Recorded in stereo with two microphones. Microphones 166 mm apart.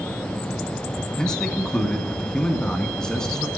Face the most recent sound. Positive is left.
turn(degrees=5)  # may be behind; listen again after turning